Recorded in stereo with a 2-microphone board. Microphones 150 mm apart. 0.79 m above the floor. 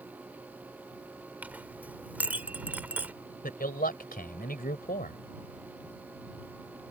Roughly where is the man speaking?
Left.